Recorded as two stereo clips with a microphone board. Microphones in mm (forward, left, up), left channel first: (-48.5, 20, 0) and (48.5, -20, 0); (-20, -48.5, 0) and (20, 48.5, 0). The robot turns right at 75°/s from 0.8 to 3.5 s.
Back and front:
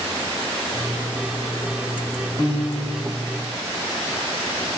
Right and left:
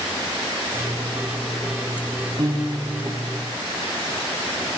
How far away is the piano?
About 3 m.